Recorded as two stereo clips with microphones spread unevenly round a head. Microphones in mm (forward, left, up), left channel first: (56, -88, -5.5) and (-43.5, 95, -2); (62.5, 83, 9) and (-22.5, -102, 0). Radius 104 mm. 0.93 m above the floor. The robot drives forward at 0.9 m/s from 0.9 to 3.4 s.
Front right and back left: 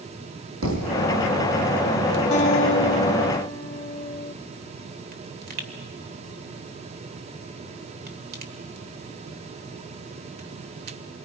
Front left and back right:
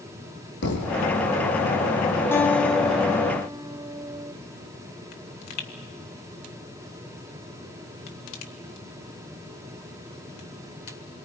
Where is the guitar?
10° right, 1.3 m; by 4.3 s 60° right, 0.7 m.